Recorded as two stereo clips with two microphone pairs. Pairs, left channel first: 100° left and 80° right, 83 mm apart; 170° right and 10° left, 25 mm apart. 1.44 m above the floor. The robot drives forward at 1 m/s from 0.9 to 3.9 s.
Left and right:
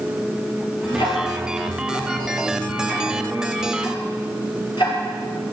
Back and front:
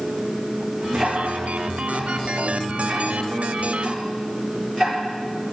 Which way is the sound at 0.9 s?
95° left.